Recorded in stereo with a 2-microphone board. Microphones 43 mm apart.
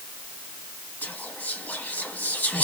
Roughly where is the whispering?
Left.